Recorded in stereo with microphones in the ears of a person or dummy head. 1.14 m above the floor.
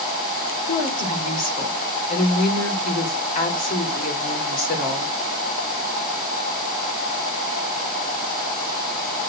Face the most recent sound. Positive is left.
turn(degrees=45)  # may be behind; listen again after turning